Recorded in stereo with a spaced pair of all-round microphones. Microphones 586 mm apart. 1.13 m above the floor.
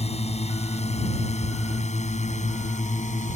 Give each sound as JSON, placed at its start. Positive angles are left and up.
{"t": 0.0, "sound": "a drone", "side_deg": 10}